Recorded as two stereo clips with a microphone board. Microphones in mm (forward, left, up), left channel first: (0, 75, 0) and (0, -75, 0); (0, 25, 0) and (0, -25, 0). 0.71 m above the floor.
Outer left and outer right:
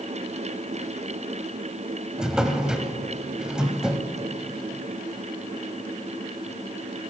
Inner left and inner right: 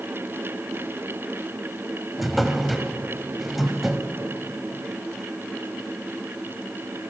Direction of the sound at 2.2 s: 5° right (ahead or behind).